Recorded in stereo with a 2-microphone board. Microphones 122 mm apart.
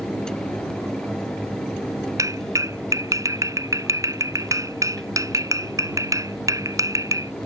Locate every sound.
2.2 s a clap: 25° right (ahead or behind)